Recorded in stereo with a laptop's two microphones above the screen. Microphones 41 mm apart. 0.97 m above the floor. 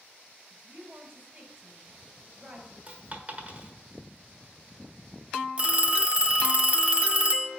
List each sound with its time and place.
0.5 s a woman speaking: 35° right (ahead or behind), 3 m
2.9 s a dropped coin: 40° right (ahead or behind), 1.4 m
5.6 s a phone ringing: 30° right (ahead or behind), 0.6 m